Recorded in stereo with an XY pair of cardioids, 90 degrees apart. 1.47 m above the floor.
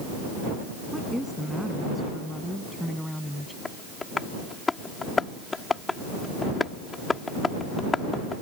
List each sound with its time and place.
0.9 s a woman speaking: straight ahead
3.6 s tapping: 30° left